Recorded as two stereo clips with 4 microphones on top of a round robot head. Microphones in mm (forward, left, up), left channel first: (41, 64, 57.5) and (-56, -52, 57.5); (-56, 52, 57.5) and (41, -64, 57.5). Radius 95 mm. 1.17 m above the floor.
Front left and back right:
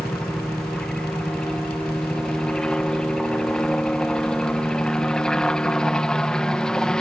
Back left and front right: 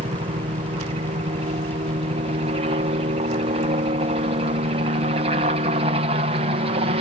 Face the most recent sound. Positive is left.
turn(degrees=-35)